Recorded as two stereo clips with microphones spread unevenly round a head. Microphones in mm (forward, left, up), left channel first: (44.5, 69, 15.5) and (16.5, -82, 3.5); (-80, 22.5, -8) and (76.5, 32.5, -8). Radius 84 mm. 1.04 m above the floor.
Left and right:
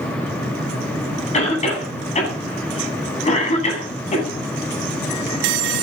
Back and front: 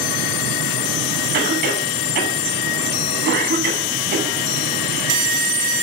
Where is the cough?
35° left, 9.5 m.